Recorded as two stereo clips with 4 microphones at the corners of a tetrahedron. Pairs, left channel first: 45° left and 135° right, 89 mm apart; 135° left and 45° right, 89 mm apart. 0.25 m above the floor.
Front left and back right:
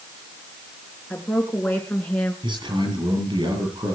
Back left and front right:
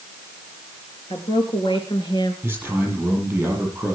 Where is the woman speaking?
120° left, 4 m.